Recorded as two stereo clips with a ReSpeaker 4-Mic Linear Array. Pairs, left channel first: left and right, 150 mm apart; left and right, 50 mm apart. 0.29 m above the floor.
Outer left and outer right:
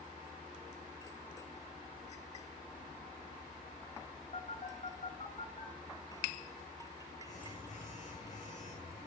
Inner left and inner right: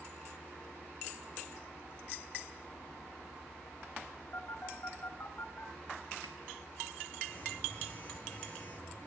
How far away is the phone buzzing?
About 5.5 m.